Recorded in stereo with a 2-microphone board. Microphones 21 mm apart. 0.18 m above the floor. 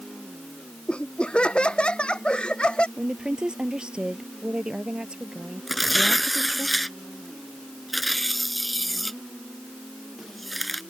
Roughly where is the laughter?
Left.